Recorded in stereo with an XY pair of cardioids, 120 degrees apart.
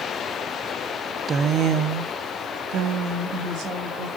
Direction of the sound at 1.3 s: 30° right.